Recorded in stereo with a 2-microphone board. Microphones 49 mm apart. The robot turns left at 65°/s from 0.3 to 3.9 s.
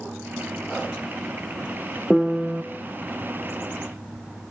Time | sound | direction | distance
2.1 | a piano | straight ahead | 0.7 m